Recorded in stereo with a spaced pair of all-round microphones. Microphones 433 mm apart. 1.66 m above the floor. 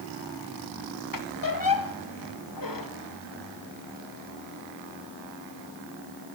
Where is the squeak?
45° left (ahead or behind), 0.9 m.